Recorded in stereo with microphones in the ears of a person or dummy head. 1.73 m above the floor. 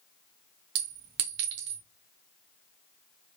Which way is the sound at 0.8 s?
20° right (ahead or behind).